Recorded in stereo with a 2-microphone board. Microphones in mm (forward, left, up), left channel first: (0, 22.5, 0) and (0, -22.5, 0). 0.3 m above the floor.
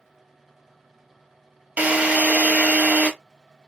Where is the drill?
30° right (ahead or behind), 0.8 m.